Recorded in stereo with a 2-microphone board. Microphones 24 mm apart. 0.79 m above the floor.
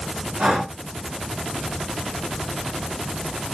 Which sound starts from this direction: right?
Breathing, at 0.4 s.